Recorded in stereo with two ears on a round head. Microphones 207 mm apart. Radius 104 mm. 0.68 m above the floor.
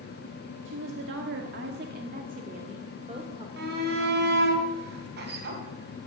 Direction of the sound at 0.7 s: 55° right (ahead or behind).